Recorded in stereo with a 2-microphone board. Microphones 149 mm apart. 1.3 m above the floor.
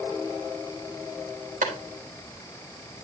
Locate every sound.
1.6 s a clap: 65° right (ahead or behind), 3.5 m